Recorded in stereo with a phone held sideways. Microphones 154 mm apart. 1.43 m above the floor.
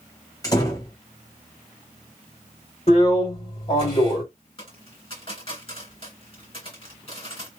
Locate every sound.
0.4 s a door slam: 25° left (ahead or behind), 1.3 m
2.9 s a drill: 40° left (ahead or behind), 2 m
4.6 s a dropped coin: 35° left (ahead or behind), 2.5 m